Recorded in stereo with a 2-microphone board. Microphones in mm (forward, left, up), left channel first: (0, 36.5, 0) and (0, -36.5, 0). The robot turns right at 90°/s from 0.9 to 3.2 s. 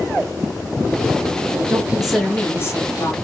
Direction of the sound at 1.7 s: 40° right.